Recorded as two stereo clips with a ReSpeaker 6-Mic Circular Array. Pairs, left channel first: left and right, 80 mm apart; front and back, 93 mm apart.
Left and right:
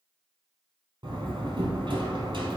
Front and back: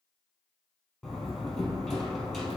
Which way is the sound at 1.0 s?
90° right.